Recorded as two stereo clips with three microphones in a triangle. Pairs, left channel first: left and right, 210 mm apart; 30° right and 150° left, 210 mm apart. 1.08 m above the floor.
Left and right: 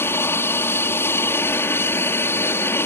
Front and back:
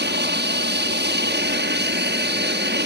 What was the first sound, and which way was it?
An aircraft, 165° left.